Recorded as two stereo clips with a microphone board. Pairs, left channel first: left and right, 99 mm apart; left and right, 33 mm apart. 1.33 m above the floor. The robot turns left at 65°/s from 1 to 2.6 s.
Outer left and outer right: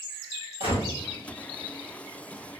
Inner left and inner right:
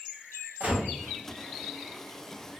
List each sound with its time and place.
0.6 s a gunshot: 70° right (ahead or behind), 1.7 m